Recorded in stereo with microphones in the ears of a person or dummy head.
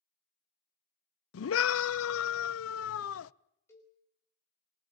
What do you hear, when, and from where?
1.3 s a scream: 80° left, 0.8 m
3.7 s a cowbell: 15° left (ahead or behind), 5 m